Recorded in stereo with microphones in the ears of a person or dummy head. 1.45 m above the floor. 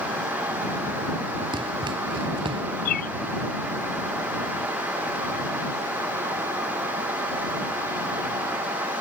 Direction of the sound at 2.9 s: 50° left (ahead or behind).